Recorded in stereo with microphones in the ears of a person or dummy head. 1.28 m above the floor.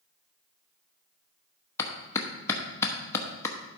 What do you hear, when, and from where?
1.8 s a clap: 15° left (ahead or behind), 0.9 m